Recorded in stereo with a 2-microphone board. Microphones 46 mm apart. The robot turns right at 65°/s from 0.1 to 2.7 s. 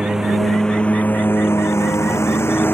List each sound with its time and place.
0.0 s a lawn mower: 15° right (ahead or behind); by 2.8 s 55° left (ahead or behind)